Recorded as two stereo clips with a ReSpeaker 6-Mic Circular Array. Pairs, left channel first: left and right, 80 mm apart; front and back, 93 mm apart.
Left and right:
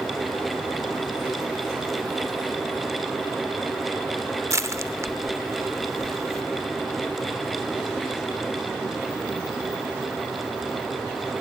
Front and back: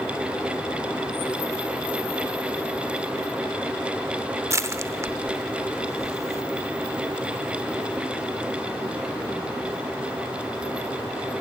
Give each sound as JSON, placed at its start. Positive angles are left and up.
{"t": 4.5, "sound": "crushing", "azimuth_deg": -130, "distance_m": 0.8}